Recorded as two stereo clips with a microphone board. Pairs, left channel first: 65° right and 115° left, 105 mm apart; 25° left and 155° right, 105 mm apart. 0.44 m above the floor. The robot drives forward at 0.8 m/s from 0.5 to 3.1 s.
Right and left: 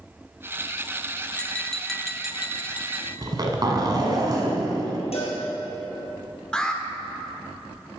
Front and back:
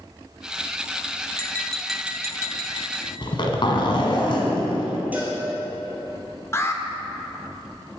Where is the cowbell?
85° right, 2 m.